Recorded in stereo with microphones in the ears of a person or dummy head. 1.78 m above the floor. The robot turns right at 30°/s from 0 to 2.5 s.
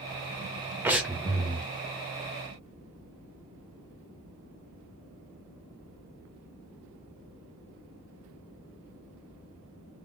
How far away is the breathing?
About 0.6 m.